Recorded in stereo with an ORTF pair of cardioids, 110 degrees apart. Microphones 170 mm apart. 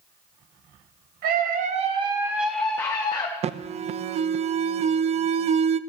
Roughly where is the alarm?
Ahead right.